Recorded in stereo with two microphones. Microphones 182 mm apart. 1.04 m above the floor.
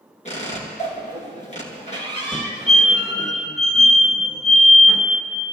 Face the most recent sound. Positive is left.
turn(degrees=5)  # may be behind; listen again after turning